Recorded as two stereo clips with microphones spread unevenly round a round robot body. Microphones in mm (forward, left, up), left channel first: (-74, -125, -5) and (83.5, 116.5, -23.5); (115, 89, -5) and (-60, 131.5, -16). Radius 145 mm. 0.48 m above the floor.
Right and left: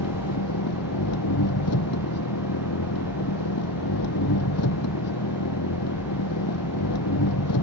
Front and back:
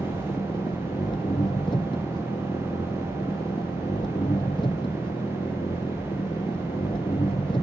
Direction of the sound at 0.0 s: 90° right.